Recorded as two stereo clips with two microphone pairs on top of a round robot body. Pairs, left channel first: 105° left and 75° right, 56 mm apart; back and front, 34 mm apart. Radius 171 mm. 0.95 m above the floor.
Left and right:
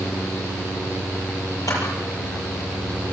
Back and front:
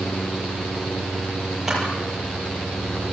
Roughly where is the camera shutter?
Left.